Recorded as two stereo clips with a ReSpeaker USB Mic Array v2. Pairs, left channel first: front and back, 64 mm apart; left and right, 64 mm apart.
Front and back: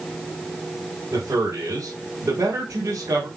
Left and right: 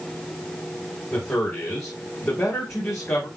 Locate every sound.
1.1 s a man speaking: 140° left, 4 m